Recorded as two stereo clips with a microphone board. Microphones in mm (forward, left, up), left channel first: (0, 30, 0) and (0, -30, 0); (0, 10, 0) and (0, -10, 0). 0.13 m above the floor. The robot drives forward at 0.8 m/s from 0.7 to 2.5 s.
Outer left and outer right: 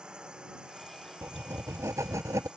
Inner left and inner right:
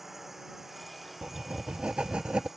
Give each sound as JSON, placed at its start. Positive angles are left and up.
{"t": 0.0, "sound": "a drone", "side_deg": -15}
{"t": 1.2, "sound": "writing", "side_deg": -45}